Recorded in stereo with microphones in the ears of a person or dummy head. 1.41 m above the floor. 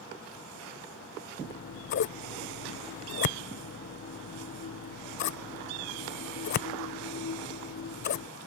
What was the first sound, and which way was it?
Scissors, 50° left (ahead or behind).